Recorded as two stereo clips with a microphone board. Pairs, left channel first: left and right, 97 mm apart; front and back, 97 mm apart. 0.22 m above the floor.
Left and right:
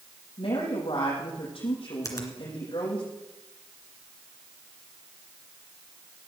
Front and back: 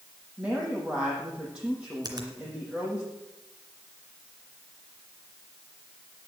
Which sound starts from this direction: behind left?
A finger snap, at 2.0 s.